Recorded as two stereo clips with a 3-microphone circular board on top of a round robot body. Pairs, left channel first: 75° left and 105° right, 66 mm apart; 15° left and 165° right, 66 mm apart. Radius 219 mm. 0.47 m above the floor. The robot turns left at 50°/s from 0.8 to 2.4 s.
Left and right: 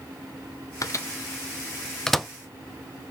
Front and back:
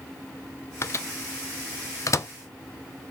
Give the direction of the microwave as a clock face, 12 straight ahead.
10 o'clock.